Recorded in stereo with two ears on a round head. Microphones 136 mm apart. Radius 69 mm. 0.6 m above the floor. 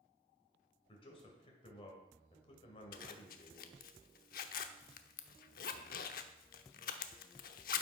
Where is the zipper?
65° left (ahead or behind), 0.8 m.